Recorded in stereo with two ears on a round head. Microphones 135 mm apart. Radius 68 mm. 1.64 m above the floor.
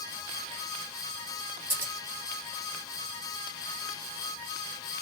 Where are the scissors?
15° right (ahead or behind), 1.3 m.